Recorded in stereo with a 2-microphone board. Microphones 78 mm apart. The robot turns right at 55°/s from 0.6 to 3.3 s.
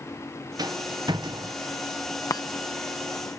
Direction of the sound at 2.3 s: 50° left (ahead or behind).